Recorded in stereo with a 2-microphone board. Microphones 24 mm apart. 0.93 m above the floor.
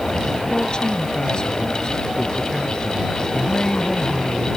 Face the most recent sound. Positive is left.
turn(degrees=35)  # may be behind; listen again after turning